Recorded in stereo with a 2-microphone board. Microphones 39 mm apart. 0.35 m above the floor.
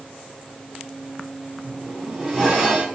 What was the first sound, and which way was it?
A zipper, 10° right (ahead or behind).